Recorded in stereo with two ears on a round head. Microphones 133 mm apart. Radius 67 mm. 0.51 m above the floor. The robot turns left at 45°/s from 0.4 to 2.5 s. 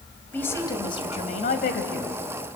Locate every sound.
0.3 s a woman speaking: 165° left, 2.5 m; by 2.2 s 85° left, 2.5 m